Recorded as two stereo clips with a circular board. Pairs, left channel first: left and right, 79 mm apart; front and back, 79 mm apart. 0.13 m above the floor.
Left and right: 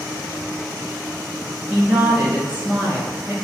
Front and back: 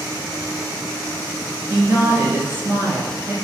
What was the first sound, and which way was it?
A woman speaking, 140° right.